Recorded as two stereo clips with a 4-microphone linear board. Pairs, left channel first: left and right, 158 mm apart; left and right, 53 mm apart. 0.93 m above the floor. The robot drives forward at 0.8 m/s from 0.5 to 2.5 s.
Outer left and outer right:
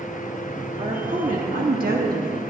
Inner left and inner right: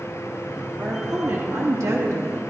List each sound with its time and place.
0.8 s a woman speaking: 45° right (ahead or behind), 1.6 m; by 2.5 s 65° right (ahead or behind), 1.3 m